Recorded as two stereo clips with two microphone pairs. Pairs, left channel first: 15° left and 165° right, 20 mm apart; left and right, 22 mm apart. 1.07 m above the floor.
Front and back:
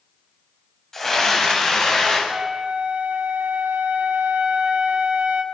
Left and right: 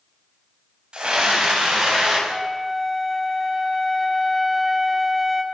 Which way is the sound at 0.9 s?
55° right.